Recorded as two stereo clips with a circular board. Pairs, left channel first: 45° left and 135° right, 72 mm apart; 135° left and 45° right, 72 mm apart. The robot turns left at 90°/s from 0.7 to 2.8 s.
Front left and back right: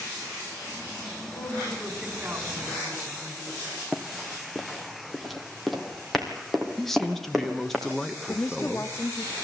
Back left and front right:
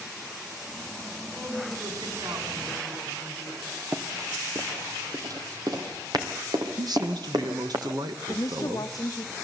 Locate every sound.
1.4 s a woman speaking: 10° left, 4 m; by 3.8 s 120° right, 4 m
3.9 s running footsteps: 45° right, 1.4 m
6.8 s a man speaking: 40° right, 1.5 m
8.3 s a woman speaking: 95° left, 1.3 m